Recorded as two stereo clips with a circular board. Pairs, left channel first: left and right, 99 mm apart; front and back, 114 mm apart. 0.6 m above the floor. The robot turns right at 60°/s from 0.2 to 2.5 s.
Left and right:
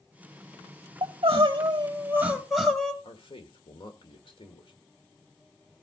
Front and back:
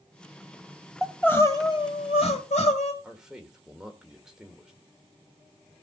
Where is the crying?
85° right, 1.9 m; by 2.9 s straight ahead, 1.9 m.